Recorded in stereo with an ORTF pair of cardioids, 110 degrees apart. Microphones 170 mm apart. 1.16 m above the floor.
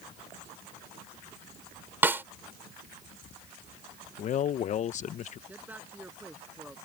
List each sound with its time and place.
2.0 s a snare drum: 10° right
4.2 s a man speaking: 45° left
5.5 s a man speaking: 10° right